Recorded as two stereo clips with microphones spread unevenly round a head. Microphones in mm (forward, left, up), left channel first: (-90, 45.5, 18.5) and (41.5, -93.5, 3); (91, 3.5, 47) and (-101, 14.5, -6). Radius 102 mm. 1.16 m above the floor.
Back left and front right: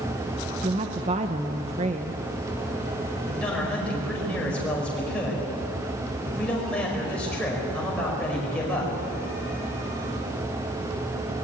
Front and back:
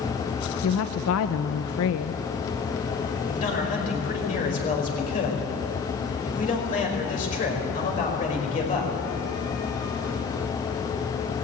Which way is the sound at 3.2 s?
50° left.